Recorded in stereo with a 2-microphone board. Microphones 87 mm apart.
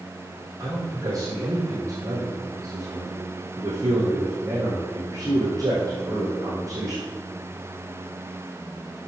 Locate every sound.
0.6 s a man speaking: 40° right (ahead or behind), 4 m